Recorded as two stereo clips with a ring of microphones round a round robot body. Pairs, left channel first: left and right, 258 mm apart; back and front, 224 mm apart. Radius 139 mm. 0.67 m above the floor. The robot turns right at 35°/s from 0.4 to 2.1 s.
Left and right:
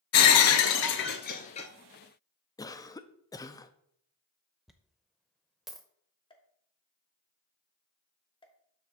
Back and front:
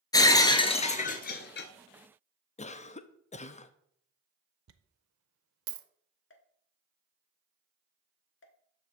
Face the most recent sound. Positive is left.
turn(degrees=160)